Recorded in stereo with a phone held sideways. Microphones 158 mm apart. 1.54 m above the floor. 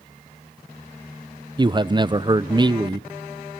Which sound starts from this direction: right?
A man speaking, at 1.6 s.